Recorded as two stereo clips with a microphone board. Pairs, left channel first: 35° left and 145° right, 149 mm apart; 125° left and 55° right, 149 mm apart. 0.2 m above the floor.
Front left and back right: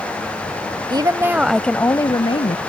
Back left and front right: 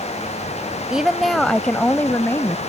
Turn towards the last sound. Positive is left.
turn(degrees=60)